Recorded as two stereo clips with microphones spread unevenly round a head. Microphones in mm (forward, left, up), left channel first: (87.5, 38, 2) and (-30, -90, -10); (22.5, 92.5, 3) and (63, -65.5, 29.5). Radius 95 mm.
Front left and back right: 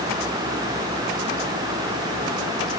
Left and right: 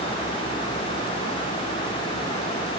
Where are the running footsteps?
No running footsteps in this recording.